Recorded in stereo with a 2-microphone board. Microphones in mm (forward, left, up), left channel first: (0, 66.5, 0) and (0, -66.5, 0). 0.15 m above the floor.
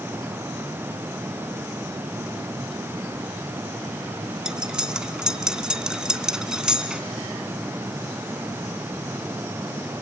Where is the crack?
I don't hear a crack.